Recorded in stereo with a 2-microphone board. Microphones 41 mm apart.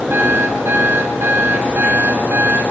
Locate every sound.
0.1 s an alarm clock: 65° right (ahead or behind), 7 m